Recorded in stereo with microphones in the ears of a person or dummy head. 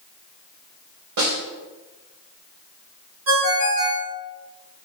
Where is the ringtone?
65° right (ahead or behind), 1.6 m.